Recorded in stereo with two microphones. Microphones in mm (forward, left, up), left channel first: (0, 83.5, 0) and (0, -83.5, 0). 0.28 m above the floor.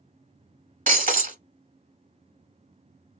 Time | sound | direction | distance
0.9 | breaking glass | 55° right (ahead or behind) | 1.2 m